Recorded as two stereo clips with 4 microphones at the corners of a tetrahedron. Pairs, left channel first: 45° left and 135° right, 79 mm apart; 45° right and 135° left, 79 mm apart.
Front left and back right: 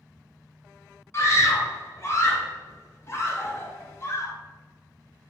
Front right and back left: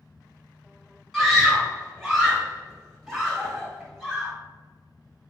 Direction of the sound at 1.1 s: 50° left.